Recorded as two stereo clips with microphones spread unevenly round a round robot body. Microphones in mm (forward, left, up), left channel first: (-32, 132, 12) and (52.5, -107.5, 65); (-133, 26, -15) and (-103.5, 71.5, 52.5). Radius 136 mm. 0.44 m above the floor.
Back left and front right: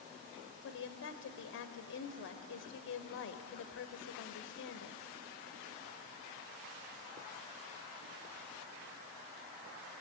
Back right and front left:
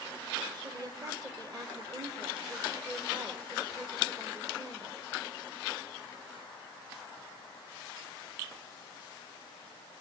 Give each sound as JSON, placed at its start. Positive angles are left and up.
{"t": 0.6, "sound": "a woman speaking", "azimuth_deg": 120, "distance_m": 2.0}